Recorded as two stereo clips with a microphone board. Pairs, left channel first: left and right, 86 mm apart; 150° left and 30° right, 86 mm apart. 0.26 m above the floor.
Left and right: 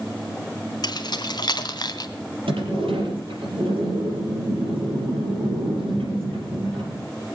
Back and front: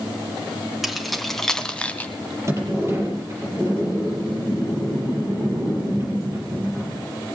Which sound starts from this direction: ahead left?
Keys jangling, at 0.8 s.